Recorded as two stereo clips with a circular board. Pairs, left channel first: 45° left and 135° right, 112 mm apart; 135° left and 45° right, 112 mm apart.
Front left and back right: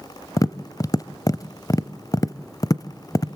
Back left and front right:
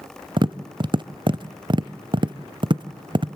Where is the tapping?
10° right, 0.5 m.